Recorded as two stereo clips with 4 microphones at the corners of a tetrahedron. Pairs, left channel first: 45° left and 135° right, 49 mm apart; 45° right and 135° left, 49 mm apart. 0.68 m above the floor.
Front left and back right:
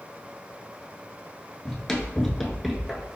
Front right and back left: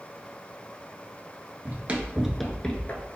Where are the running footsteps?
115° left, 0.8 m; by 3.2 s 55° right, 0.8 m.